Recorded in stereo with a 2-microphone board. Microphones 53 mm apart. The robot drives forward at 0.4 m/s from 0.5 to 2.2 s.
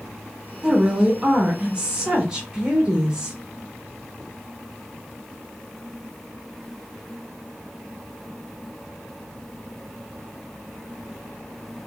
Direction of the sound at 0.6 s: 20° right (ahead or behind).